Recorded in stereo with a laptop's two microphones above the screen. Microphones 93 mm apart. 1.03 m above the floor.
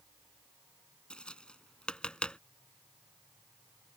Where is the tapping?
10° left (ahead or behind).